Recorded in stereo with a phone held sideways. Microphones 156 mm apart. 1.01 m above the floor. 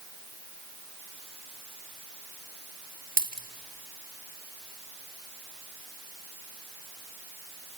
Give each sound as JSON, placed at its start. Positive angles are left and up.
{"t": 3.2, "sound": "a dropped coin", "side_deg": -65, "distance_m": 1.1}